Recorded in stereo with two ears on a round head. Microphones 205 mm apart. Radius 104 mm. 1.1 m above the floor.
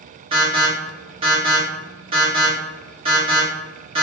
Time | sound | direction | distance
0.3 | an alarm | 25° right (ahead or behind) | 1.1 m